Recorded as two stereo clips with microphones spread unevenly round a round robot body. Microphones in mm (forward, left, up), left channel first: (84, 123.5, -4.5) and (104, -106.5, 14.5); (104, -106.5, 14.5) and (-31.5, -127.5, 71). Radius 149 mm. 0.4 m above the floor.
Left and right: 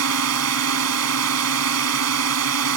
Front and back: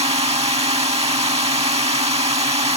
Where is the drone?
120° right.